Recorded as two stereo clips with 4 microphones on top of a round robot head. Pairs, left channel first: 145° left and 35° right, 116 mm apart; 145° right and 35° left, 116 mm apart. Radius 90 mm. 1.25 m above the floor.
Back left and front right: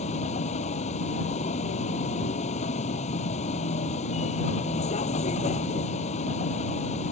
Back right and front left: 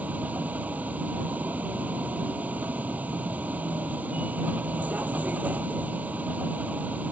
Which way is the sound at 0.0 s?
115° left.